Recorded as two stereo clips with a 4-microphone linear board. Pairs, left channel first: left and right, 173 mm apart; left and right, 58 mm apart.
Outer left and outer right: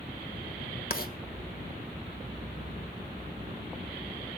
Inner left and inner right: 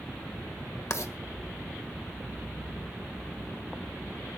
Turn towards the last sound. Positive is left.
turn(degrees=60)  # may be behind; listen again after turning